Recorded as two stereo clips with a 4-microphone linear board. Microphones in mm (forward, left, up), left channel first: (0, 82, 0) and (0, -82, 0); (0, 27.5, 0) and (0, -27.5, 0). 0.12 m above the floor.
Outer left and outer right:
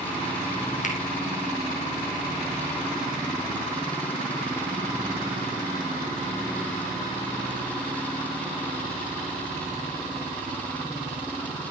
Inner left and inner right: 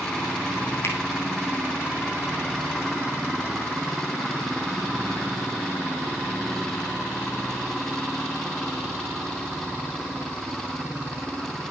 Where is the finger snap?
50° left (ahead or behind), 3 m.